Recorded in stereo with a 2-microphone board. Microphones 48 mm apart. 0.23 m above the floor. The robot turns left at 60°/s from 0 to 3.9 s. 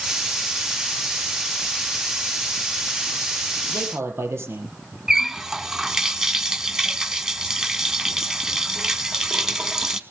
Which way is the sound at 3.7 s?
80° right.